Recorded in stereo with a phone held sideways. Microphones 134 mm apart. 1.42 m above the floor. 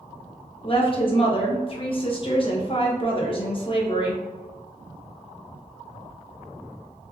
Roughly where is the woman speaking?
Left.